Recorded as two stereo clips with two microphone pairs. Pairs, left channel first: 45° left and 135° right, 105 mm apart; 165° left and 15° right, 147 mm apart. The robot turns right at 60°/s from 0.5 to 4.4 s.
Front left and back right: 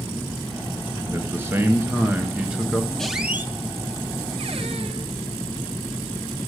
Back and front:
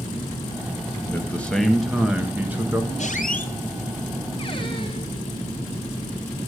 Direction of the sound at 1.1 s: 150° right.